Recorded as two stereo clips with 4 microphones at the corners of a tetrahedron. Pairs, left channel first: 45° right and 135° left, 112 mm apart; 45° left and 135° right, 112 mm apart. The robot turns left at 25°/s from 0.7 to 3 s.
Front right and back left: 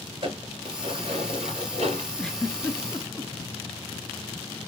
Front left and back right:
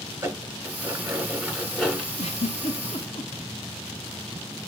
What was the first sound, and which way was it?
Dishes clattering, 160° left.